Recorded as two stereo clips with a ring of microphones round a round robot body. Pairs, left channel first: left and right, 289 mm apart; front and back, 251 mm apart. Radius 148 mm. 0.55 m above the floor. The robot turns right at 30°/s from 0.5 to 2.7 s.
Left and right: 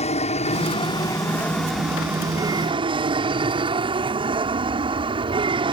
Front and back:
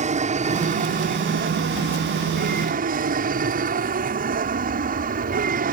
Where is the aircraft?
140° left; by 5.7 s 150° right.